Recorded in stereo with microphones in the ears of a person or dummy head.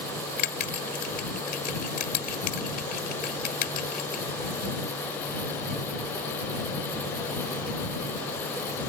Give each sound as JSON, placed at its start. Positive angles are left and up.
{"t": 0.4, "sound": "a bell", "side_deg": 50}